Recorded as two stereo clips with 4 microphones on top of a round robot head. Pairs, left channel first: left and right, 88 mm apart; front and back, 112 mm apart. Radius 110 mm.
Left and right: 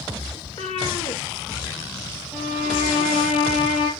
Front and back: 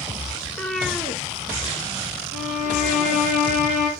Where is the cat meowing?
55° left, 0.8 m; by 3.2 s 125° left, 4 m.